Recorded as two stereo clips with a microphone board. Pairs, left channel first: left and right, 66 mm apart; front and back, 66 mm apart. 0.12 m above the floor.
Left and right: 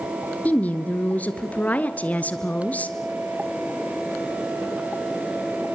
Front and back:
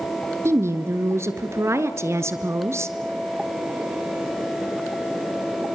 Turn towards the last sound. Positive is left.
turn(degrees=150)